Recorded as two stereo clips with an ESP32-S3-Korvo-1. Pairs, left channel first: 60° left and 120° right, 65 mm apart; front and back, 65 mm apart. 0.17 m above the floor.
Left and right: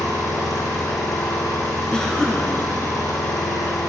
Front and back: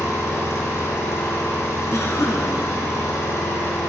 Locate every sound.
0.0 s an engine running: 40° left, 4.5 m
1.9 s a cough: 15° right, 2.5 m